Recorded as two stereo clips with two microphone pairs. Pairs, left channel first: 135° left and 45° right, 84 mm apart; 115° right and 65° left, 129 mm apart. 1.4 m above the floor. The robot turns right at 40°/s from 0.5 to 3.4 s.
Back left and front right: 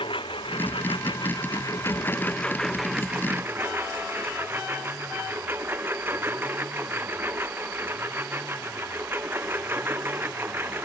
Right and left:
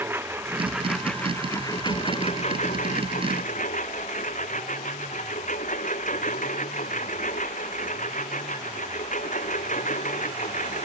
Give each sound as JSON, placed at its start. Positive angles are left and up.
{"t": 0.0, "sound": "a lawn mower", "azimuth_deg": 135}